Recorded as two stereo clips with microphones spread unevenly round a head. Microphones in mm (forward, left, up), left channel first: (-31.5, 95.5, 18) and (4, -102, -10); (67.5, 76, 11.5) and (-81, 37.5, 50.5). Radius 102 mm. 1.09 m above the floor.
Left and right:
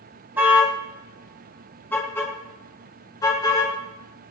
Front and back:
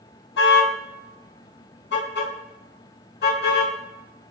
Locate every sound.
0.4 s a car horn: 5° left, 3.5 m; by 3.7 s 30° left, 6.5 m